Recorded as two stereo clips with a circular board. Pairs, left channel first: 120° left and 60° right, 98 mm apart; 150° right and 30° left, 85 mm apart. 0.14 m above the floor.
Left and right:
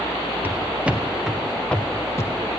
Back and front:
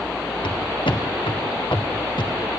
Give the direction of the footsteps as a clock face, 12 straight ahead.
4 o'clock.